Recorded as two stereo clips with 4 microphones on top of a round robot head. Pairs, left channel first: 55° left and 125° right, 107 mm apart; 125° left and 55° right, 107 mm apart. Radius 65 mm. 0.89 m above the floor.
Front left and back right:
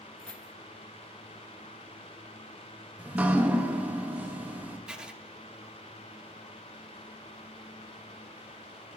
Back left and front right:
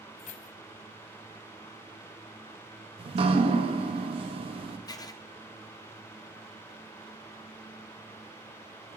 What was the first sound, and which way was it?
Keys jangling, 135° left.